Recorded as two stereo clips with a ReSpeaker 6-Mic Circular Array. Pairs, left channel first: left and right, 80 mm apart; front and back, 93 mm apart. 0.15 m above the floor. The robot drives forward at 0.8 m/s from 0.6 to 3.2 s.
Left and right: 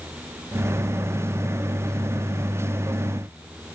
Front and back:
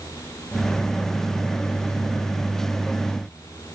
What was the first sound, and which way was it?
Only background noise.